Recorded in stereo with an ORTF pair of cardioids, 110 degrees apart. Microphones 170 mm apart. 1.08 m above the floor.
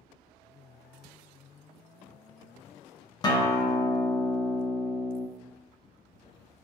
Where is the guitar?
25° left, 0.5 m.